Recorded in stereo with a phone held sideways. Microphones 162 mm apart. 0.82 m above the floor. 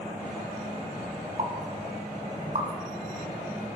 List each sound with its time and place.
1.4 s a pop: 55° right (ahead or behind), 1.1 m